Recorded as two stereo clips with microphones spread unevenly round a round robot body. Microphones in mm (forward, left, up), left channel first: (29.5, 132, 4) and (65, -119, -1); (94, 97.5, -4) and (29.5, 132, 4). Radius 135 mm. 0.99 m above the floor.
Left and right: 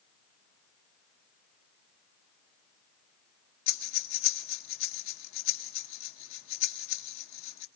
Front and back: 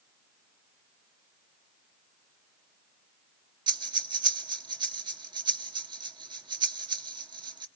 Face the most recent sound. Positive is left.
turn(degrees=145)